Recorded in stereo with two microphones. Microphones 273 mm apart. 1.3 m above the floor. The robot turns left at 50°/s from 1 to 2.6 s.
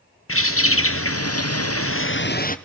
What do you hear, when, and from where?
0.3 s a bird: 110° left, 0.8 m; by 2.6 s 35° left, 0.8 m